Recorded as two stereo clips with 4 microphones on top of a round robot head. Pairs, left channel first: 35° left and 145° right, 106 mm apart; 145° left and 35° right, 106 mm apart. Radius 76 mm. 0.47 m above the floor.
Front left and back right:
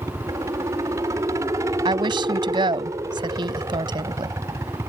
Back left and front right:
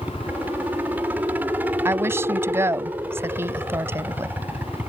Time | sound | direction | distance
0.0 | a helicopter | 100° right | ?
1.9 | a woman speaking | 100° right | ?